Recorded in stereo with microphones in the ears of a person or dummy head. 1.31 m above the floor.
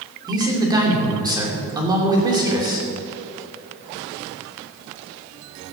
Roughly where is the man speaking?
Centre.